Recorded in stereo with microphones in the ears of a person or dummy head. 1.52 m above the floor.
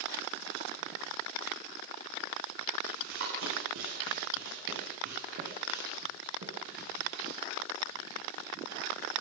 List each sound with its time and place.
2.9 s running footsteps: 75° right (ahead or behind), 8 m; by 7.1 s 65° right (ahead or behind), 9.5 m